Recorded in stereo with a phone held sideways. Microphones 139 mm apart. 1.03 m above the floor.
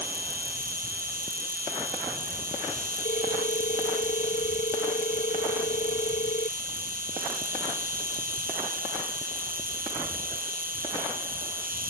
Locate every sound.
0.0 s an insect: 80° right
3.0 s a ringtone: 60° left (ahead or behind)